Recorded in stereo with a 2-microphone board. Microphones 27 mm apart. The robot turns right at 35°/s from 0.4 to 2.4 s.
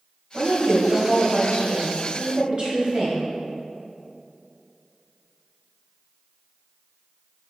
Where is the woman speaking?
110° right, 3 m; by 3.2 s 40° right, 3 m.